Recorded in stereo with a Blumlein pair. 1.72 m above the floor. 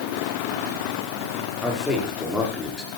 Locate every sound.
1.6 s a man speaking: 5° left, 5.5 m